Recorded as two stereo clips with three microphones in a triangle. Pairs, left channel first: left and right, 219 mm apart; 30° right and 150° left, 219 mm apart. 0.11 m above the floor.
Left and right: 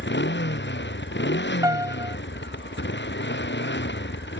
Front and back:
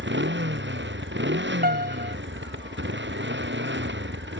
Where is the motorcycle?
120° left.